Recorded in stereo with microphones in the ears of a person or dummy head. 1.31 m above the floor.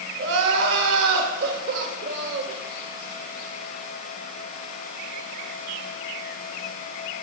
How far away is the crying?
About 1.7 m.